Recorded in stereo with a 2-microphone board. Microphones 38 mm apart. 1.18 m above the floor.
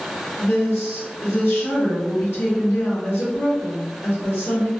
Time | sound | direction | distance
0.4 | a woman speaking | 70° left (ahead or behind) | 1.5 m